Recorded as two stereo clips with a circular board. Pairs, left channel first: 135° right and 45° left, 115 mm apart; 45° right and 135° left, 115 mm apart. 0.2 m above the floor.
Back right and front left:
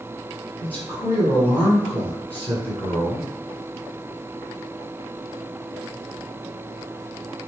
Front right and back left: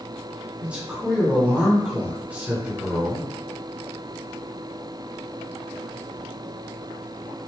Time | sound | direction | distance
0.6 | a man speaking | 165° right | 1.6 m